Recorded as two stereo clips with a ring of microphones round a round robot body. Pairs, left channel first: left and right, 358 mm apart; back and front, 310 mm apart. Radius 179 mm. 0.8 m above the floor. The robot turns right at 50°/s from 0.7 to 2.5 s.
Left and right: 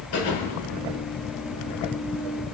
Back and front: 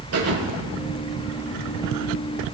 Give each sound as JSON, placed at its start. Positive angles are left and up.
{"t": 0.1, "sound": "a thud", "azimuth_deg": 40, "distance_m": 6.0}